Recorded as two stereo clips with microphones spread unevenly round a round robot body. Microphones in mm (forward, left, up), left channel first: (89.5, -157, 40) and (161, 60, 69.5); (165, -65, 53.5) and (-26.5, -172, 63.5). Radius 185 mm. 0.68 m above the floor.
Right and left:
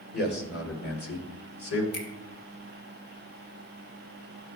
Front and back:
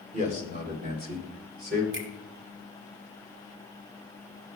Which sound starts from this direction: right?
A man speaking, at 0.1 s.